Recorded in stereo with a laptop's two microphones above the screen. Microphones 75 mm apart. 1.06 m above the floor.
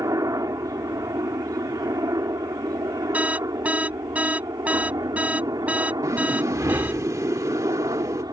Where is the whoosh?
45° right (ahead or behind).